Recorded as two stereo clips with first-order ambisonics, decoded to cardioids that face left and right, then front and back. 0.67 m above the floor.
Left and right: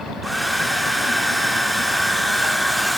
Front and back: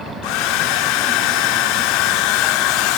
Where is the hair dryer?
Straight ahead, 0.9 m.